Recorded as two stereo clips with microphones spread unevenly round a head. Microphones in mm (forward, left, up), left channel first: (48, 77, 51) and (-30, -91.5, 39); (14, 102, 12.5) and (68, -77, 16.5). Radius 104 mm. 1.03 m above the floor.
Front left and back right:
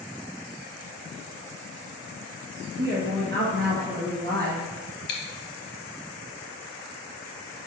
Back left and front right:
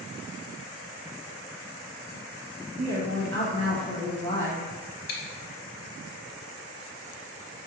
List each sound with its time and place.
2.8 s a woman speaking: 85° right, 1.4 m
5.1 s chewing: 85° left, 1.0 m